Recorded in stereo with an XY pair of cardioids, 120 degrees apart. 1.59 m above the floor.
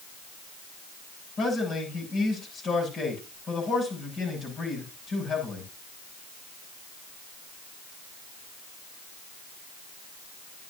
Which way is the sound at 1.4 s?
45° left.